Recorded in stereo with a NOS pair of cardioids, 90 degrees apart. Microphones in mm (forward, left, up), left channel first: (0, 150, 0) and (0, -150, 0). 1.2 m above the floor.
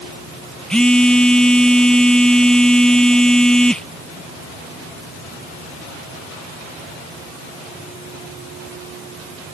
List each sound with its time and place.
0.7 s a phone buzzing: 5° left